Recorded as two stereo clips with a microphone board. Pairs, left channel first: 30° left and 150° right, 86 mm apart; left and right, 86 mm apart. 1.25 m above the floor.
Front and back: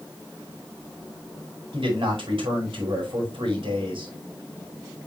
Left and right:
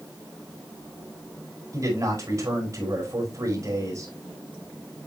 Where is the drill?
I don't hear a drill.